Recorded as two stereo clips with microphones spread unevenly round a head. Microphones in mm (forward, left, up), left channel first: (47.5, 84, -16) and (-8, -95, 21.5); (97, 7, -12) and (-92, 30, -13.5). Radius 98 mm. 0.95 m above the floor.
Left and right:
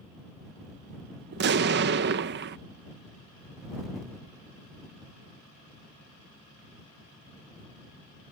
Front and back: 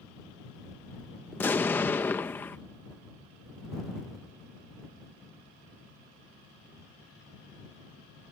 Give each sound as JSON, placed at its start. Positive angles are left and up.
{"t": 1.3, "sound": "an explosion", "azimuth_deg": -85}